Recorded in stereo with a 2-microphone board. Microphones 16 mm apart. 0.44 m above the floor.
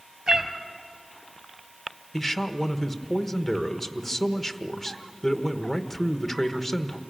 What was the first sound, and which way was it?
A cat meowing, 55° right (ahead or behind).